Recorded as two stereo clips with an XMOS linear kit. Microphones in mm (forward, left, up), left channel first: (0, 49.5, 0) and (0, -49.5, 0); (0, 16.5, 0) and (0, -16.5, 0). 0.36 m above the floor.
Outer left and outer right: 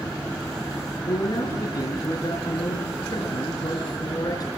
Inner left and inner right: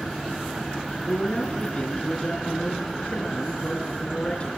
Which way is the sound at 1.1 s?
40° left (ahead or behind).